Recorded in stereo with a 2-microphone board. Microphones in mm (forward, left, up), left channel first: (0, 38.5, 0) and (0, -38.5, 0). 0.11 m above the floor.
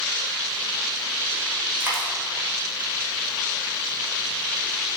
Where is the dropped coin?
30° right (ahead or behind), 4 m.